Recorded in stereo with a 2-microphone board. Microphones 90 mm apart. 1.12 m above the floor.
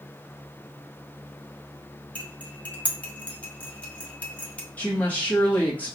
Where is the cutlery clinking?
15° left (ahead or behind), 0.6 m.